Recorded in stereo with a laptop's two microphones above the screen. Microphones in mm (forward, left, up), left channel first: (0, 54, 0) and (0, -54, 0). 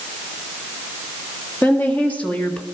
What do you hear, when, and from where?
1.6 s a woman speaking: 15° left (ahead or behind), 1.8 m; by 2.6 s 10° left (ahead or behind), 1.0 m